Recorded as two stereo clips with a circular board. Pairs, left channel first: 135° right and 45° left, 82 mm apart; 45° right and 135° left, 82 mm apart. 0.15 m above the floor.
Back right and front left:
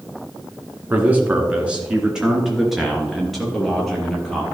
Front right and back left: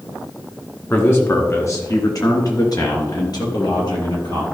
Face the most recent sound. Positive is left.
turn(degrees=-50)